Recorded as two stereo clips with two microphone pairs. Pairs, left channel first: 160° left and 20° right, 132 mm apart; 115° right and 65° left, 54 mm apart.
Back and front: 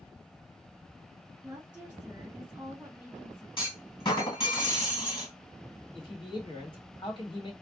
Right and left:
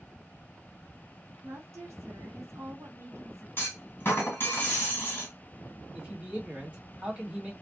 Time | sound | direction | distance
1.4 | a woman speaking | 60° left | 1.6 m
3.6 | a clunk | 155° right | 1.3 m
6.0 | a man speaking | 120° left | 1.8 m